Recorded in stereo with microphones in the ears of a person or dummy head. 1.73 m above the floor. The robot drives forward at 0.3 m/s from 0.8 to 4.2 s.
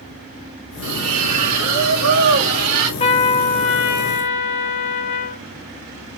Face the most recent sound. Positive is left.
turn(degrees=45)  # may be behind; listen again after turning